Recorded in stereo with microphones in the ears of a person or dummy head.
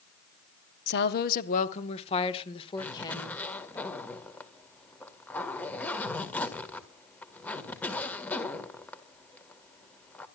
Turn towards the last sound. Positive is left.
turn(degrees=5)  # may be behind; listen again after turning